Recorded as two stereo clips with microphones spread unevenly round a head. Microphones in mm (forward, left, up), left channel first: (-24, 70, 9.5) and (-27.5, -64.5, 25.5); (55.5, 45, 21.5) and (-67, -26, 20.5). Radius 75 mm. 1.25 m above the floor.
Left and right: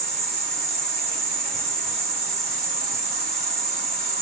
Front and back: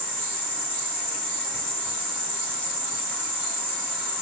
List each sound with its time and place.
0.0 s an insect: 55° right, 1.4 m